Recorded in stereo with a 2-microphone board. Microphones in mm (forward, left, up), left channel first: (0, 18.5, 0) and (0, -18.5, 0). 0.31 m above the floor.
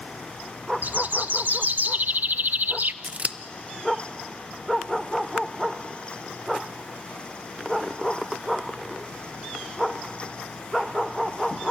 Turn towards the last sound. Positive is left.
turn(degrees=-40)  # may be behind; listen again after turning